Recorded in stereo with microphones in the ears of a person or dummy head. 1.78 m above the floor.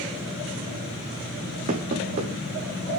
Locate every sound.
1.7 s knocking: 40° right (ahead or behind), 2 m